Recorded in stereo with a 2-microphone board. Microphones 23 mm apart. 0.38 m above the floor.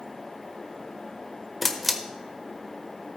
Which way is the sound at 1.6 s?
Centre (ahead or behind).